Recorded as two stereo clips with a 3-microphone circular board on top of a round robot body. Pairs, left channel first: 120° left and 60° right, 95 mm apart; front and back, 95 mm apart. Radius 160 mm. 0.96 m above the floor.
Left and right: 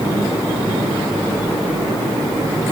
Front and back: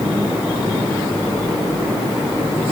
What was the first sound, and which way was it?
Only background noise.